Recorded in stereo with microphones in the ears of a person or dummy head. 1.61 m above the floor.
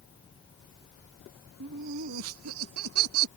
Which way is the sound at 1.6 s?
55° right (ahead or behind).